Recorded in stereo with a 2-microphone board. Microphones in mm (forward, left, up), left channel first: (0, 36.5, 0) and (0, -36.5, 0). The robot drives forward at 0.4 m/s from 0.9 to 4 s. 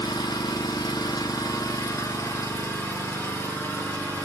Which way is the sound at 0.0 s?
65° left (ahead or behind).